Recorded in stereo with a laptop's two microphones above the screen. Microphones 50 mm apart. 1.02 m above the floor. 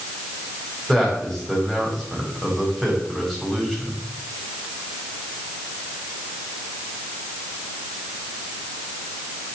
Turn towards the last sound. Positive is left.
turn(degrees=5)  # may be behind; listen again after turning